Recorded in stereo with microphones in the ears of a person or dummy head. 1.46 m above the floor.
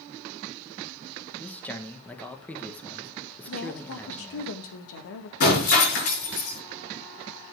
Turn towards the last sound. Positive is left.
turn(degrees=55)  # may be behind; listen again after turning